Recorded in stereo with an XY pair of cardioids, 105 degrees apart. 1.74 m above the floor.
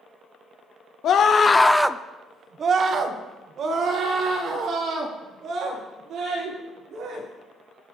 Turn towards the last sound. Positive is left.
turn(degrees=-65)